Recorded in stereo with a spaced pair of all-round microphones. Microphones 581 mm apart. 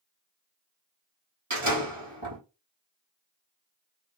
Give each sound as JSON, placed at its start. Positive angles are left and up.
{"t": 1.5, "sound": "a door slam", "side_deg": -60, "distance_m": 1.8}